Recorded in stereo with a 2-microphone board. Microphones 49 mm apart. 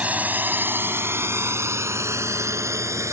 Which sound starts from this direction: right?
A drone, at 0.0 s.